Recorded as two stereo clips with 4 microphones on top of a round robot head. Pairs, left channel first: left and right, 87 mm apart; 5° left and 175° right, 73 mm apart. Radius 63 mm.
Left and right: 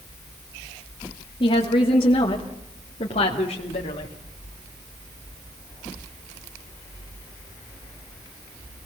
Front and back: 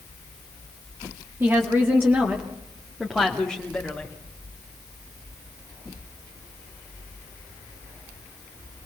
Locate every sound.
1.4 s a woman speaking: 130° left, 2.5 m; by 4.1 s 90° left, 2.5 m